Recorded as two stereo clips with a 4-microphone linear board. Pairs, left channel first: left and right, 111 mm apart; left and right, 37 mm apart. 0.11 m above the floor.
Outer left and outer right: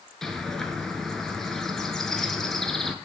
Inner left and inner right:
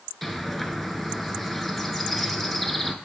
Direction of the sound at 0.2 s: 5° left (ahead or behind).